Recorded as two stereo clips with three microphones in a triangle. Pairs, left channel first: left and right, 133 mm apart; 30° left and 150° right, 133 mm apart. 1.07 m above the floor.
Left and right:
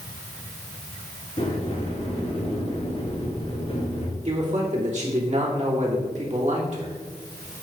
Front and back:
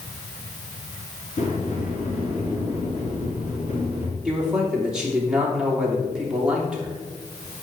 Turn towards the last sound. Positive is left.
turn(degrees=-65)